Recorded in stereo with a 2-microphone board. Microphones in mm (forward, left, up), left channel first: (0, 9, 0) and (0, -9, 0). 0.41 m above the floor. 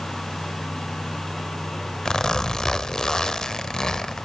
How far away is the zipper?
About 0.9 m.